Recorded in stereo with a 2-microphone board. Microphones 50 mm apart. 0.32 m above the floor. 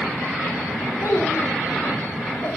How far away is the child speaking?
About 5.5 m.